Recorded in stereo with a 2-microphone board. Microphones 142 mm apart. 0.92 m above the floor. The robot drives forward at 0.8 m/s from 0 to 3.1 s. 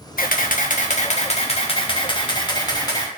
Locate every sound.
0.2 s a camera shutter: 75° left (ahead or behind), 1.2 m; by 3.1 s 25° left (ahead or behind), 2.5 m